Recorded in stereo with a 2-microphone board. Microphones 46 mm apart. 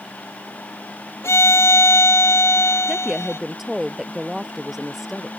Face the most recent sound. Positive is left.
turn(degrees=-5)  # may be behind; listen again after turning